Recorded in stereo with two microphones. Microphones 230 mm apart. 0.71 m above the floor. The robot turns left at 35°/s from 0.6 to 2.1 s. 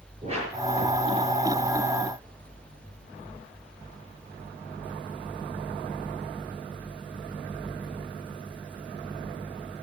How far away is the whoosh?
About 6.5 m.